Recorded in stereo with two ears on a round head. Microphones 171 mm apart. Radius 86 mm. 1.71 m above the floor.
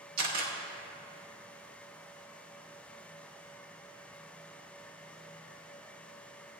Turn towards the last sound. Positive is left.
turn(degrees=-55)  # may be behind; listen again after turning